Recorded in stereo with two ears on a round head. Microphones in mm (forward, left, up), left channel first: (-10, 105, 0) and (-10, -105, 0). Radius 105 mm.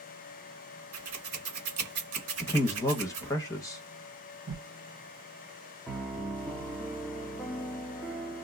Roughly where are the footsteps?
No footsteps in this recording.